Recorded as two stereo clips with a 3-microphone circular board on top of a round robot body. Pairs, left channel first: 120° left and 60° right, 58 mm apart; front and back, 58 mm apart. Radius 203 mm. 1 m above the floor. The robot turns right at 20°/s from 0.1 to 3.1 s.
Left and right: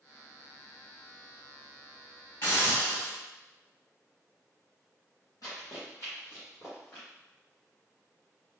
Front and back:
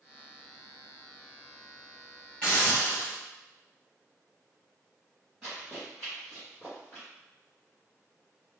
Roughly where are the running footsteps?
Left.